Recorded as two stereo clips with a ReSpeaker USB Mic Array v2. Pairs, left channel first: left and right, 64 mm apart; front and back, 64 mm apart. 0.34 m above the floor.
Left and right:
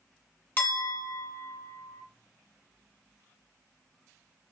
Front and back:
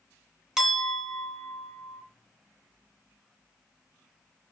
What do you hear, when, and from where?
0.6 s a clink: 105° left, 0.7 m